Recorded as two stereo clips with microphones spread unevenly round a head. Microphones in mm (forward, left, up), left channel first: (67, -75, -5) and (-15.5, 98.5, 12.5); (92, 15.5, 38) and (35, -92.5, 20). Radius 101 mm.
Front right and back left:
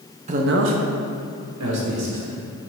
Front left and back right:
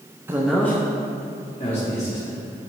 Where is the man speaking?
175° left, 0.7 m; by 2.4 s 115° left, 2 m.